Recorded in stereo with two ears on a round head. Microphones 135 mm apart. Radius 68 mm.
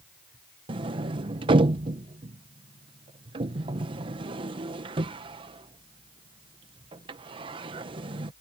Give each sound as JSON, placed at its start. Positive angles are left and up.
{"t": 0.7, "sound": "a sliding door", "side_deg": -35}